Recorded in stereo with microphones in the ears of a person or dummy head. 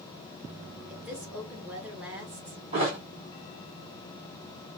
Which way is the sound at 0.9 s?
5° right (ahead or behind).